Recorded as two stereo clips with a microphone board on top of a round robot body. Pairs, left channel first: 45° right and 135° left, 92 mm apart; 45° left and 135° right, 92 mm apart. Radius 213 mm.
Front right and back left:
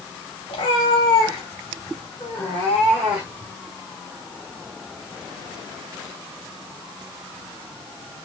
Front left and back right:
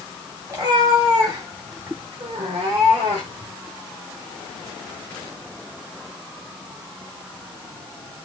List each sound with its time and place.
0.5 s a cat meowing: 85° right, 1.8 m; by 3.5 s 160° right, 1.1 m